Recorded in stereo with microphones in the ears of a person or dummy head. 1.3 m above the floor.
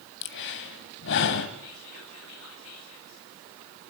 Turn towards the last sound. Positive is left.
turn(degrees=80)